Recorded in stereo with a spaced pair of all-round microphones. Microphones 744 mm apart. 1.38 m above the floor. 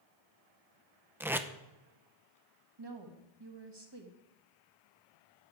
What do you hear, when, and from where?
1.2 s tape being pulled: 5° right (ahead or behind), 0.6 m
2.8 s a woman speaking: 35° right (ahead or behind), 1.7 m